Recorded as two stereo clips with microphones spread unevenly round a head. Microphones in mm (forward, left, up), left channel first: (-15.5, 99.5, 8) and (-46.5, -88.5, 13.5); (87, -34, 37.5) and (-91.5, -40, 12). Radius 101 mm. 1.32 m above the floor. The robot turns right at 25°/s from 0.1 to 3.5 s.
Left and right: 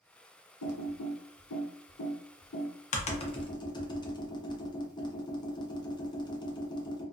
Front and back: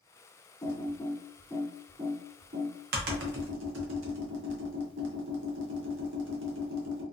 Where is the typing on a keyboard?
75° left, 0.6 m; by 7.0 s 150° left, 0.6 m.